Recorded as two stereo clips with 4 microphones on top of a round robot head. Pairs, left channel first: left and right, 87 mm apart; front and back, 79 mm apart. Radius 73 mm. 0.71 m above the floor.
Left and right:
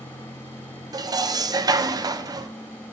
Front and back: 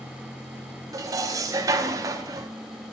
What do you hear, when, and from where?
0.9 s dishes clattering: 135° right, 0.6 m